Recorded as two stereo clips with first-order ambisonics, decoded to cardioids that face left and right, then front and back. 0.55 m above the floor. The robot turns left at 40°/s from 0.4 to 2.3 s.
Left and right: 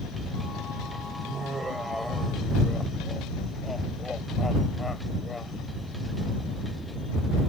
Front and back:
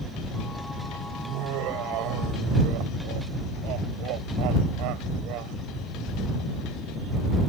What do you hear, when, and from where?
1.2 s laughter: 145° right; by 5.6 s 170° left